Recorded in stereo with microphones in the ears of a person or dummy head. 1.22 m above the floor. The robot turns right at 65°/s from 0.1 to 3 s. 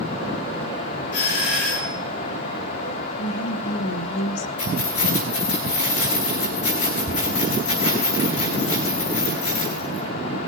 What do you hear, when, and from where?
1.1 s a doorbell: 60° left, 2.5 m; by 2.0 s 115° left, 2.5 m
3.2 s a woman speaking: 65° left (ahead or behind), 1.0 m
4.6 s keys jangling: 35° left (ahead or behind), 4.5 m